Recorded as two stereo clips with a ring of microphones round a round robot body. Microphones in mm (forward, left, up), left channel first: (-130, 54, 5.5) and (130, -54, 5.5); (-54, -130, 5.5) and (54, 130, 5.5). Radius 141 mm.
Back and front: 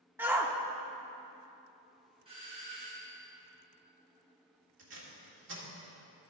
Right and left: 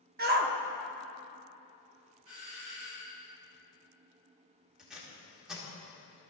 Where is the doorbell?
45° left, 3 m.